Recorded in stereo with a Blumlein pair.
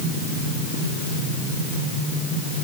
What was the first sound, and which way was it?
Only background noise.